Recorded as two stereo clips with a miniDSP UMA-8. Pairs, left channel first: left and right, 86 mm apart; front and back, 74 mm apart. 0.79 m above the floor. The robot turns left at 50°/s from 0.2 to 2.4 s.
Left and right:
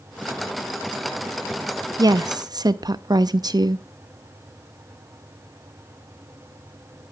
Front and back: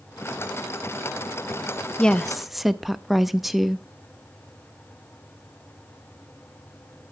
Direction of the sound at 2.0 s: 70° right.